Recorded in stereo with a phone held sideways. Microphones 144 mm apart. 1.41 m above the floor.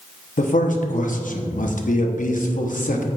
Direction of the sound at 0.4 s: 65° left (ahead or behind).